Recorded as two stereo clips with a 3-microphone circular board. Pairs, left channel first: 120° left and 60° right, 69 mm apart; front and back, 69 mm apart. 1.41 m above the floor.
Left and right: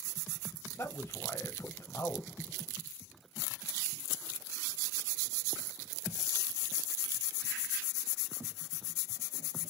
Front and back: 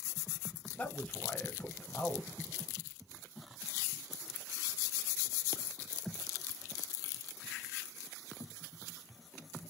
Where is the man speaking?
75° left, 0.6 m.